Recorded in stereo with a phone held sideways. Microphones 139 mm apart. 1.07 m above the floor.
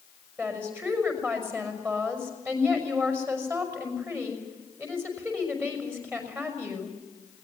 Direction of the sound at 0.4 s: 15° right (ahead or behind).